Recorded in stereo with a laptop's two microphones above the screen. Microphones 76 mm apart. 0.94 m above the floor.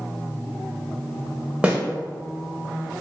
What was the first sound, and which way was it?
A snare drum, 15° right (ahead or behind).